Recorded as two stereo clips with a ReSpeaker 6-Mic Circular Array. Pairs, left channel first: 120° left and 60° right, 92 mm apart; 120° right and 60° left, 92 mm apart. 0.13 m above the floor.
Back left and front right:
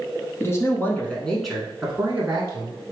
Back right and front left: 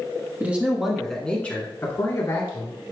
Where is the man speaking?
115° left, 1.2 m; by 2.8 s 110° right, 1.5 m.